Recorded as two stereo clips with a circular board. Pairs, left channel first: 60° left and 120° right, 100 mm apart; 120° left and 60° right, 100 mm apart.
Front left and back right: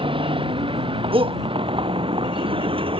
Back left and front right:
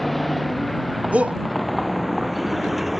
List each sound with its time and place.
0.0 s a vehicle: 150° right; by 3.0 s 145° right
1.1 s a shout: 135° right